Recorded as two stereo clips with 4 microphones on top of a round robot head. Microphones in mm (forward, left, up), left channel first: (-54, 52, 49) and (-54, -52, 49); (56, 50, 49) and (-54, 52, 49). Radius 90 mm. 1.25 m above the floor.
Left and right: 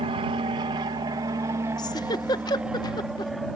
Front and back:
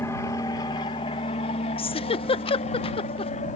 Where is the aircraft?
65° right; by 3.6 s 5° left.